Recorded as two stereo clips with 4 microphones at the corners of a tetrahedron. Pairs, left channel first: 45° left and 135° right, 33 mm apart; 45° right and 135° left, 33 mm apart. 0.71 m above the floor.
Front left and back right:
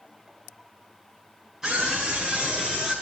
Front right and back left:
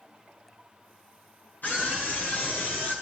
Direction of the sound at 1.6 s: 55° right.